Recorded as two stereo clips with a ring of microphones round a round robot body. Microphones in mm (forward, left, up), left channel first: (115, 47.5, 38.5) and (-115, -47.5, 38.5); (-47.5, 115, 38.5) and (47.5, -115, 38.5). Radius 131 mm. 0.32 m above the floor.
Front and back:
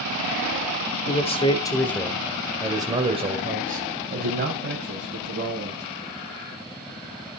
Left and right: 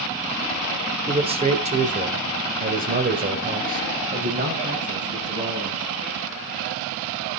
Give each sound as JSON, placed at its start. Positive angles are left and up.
{"t": 1.1, "sound": "a man speaking", "azimuth_deg": -15, "distance_m": 1.6}